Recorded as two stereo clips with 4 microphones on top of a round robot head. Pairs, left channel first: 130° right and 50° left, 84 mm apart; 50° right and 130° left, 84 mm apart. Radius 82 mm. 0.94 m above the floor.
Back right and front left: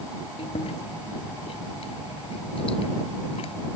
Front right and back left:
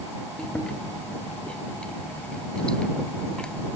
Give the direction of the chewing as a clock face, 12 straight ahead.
4 o'clock.